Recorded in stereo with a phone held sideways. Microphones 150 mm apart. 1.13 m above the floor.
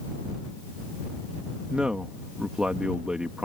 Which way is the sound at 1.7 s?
5° right (ahead or behind).